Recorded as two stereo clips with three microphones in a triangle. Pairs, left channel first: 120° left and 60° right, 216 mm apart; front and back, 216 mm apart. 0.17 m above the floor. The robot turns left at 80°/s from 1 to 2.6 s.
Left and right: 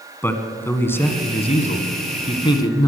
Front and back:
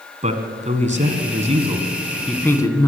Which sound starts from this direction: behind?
A man speaking, at 0.2 s.